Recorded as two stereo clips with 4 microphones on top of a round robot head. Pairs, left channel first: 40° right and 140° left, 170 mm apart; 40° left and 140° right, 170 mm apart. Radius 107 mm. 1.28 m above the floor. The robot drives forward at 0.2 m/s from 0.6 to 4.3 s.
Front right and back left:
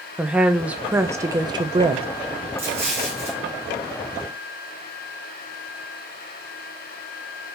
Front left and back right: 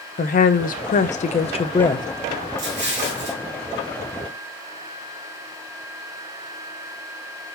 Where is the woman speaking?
60° left, 0.6 m; by 2.1 s 100° left, 0.5 m.